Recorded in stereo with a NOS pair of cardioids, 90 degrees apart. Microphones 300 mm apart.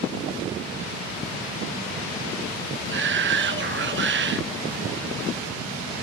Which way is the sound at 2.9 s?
40° right.